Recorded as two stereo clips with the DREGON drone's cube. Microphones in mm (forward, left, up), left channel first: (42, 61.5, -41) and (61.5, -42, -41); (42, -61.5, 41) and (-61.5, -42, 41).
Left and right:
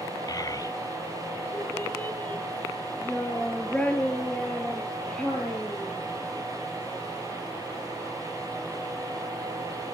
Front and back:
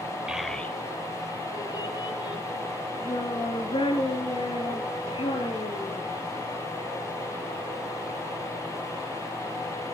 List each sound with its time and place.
0.3 s a child speaking: 95° left, 0.8 m; by 6.0 s 20° left, 6 m